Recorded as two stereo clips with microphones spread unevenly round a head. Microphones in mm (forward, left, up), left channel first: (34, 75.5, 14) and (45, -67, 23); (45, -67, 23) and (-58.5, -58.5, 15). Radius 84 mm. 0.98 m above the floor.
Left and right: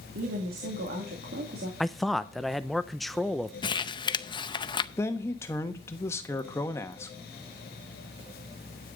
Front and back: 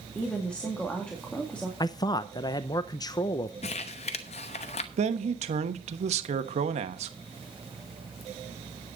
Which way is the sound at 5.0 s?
170° left.